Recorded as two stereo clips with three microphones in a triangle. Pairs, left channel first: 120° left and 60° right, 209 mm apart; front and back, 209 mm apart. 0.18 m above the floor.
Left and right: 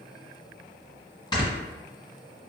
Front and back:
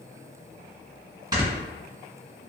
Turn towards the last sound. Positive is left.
turn(degrees=150)